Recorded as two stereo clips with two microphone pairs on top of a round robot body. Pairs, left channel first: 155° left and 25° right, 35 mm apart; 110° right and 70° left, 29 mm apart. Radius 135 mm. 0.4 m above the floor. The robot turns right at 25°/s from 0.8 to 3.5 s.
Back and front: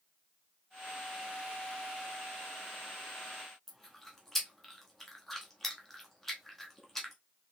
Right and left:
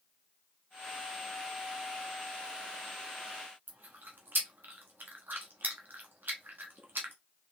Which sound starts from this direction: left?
Chewing, at 3.7 s.